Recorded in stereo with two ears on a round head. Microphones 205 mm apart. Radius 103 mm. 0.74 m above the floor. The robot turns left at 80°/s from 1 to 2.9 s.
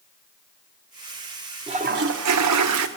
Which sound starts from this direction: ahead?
A toilet flushing, at 1.7 s.